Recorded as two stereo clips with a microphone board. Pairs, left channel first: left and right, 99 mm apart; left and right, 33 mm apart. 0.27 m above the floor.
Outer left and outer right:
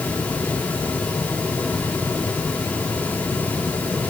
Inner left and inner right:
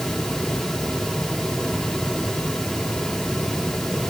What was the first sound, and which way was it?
Only background noise.